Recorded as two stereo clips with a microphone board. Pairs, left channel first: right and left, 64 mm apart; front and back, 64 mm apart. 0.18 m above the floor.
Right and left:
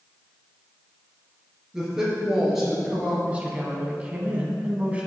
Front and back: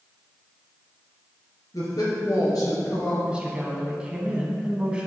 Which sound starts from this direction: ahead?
A woman speaking, at 1.7 s.